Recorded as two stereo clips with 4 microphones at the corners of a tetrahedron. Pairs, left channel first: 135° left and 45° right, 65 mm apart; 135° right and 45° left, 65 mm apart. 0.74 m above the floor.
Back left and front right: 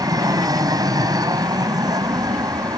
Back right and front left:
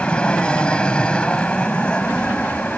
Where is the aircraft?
60° right.